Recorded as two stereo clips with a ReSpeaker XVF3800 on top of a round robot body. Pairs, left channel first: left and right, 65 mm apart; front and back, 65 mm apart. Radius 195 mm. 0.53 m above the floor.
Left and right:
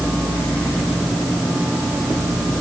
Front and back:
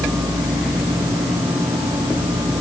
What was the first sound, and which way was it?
Only background noise.